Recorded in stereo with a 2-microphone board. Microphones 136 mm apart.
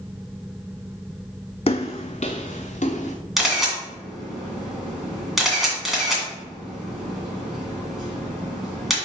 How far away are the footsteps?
About 0.6 m.